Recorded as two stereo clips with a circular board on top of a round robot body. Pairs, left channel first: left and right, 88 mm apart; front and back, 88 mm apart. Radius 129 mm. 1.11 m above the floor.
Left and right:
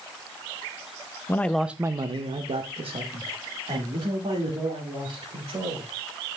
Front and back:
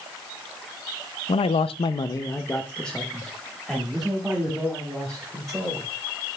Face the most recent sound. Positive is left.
turn(degrees=-100)